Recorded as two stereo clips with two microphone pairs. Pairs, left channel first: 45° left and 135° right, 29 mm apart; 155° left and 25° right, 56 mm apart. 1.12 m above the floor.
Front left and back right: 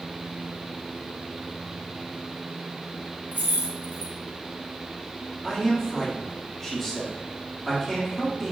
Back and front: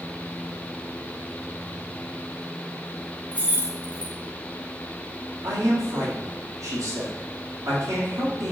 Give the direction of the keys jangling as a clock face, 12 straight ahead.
5 o'clock.